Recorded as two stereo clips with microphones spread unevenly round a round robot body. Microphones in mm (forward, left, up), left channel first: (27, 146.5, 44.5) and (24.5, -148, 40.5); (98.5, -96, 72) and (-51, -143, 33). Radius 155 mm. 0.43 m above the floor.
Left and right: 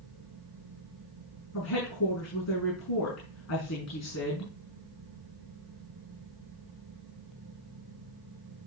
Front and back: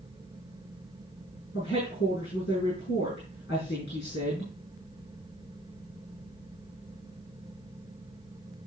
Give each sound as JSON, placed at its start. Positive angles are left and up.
{"t": 1.5, "sound": "a woman speaking", "azimuth_deg": 55, "distance_m": 6.0}